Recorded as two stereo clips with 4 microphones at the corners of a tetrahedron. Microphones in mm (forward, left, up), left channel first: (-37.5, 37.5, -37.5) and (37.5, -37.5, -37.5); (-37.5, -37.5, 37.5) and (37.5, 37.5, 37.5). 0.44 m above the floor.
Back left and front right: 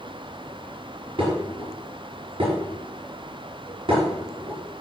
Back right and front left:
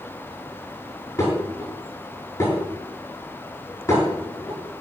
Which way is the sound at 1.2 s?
75° right.